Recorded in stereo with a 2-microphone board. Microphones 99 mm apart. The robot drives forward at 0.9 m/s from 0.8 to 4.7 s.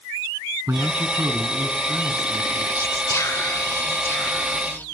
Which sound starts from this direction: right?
A man speaking, at 0.7 s.